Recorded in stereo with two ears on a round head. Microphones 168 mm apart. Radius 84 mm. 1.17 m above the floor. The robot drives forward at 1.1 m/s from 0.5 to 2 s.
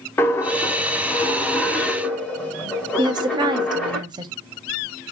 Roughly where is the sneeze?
I don't hear a sneeze.